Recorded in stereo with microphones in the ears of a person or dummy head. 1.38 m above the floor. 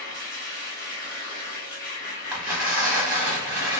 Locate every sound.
0.0 s a machine running: 45° left (ahead or behind), 1.3 m
2.3 s tearing paper: 5° right (ahead or behind), 0.9 m